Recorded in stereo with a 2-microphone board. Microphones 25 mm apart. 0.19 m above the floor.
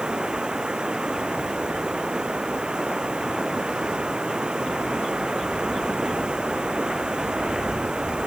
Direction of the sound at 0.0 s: 35° right (ahead or behind).